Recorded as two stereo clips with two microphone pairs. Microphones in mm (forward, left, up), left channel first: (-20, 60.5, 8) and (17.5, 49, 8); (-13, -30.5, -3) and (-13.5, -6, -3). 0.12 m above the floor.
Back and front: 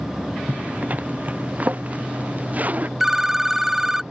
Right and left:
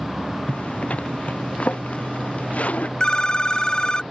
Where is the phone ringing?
90° right.